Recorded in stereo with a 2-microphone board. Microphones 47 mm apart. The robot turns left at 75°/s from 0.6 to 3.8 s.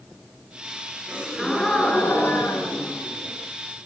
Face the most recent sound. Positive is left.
turn(degrees=5)